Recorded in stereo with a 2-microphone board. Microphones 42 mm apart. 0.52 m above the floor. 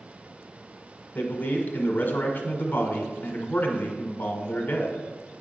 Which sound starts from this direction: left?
A man speaking, at 1.1 s.